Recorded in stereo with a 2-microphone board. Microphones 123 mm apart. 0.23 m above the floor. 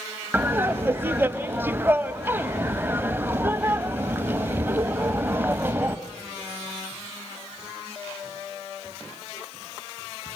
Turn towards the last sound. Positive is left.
turn(degrees=-20)  # may be behind; listen again after turning